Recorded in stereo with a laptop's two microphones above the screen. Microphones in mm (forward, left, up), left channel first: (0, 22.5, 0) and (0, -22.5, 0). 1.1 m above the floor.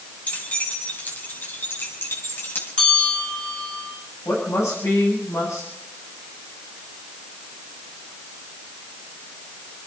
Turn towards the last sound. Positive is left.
turn(degrees=90)